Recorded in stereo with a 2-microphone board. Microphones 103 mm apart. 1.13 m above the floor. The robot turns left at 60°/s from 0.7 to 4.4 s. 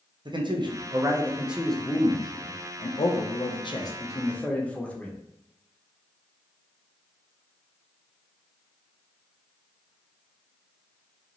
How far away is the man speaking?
About 0.5 m.